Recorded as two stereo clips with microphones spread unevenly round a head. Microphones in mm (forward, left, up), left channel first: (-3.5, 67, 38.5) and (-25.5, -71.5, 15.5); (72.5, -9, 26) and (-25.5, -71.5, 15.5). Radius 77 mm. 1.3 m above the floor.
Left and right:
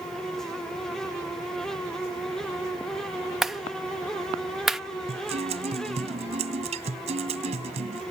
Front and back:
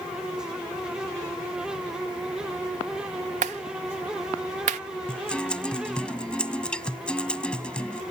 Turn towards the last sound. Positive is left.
turn(degrees=-50)